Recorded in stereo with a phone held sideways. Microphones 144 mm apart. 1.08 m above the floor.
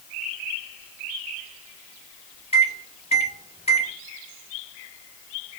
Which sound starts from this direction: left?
A microwave, at 2.5 s.